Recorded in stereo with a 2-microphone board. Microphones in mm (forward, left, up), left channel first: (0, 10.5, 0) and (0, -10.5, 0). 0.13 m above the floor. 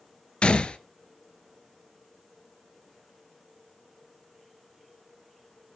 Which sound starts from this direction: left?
A gunshot, at 0.4 s.